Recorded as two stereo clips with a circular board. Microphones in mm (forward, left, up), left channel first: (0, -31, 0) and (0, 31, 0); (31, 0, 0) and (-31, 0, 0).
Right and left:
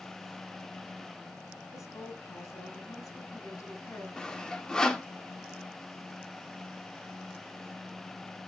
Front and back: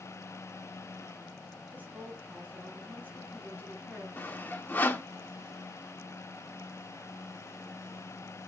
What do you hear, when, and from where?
1.7 s a woman speaking: 120° right, 4 m
4.2 s sawing: 20° right, 1.0 m